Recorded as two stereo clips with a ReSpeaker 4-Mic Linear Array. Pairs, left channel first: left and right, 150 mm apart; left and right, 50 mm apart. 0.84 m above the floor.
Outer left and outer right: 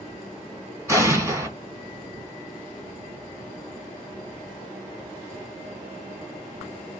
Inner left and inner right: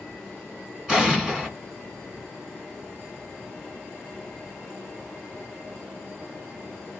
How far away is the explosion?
About 1.7 m.